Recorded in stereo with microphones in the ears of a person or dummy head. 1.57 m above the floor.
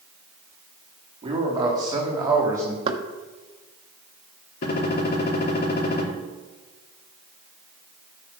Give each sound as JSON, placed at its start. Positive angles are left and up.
{"t": 1.2, "sound": "a man speaking", "side_deg": -25, "distance_m": 4.0}
{"t": 2.9, "sound": "knocking", "side_deg": -30, "distance_m": 1.5}
{"t": 4.6, "sound": "a gunshot", "side_deg": 55, "distance_m": 4.0}